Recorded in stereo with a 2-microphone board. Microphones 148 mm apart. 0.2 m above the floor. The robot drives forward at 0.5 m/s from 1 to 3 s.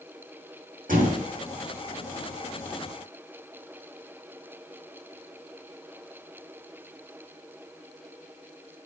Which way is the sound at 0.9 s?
80° right.